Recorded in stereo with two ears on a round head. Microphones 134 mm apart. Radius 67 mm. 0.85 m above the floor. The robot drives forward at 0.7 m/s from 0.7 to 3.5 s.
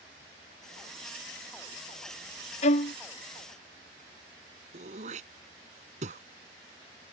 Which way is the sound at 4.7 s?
50° right (ahead or behind).